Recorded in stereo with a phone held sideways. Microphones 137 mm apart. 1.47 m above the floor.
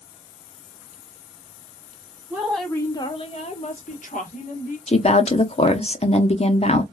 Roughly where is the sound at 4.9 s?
Left.